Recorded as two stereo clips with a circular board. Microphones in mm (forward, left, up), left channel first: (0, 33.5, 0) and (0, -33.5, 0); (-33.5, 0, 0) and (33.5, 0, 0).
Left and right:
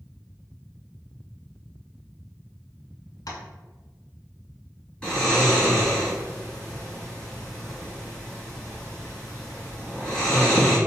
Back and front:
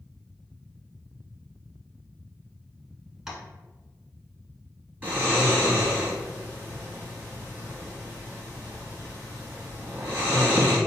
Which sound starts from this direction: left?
Tapping, at 3.3 s.